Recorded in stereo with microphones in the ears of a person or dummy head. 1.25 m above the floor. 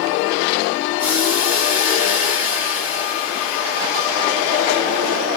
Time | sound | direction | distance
1.0 | boiling | 5° right (ahead or behind) | 1.1 m